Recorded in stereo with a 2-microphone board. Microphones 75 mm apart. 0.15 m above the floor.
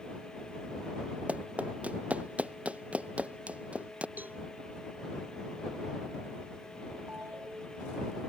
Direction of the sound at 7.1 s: 25° right (ahead or behind).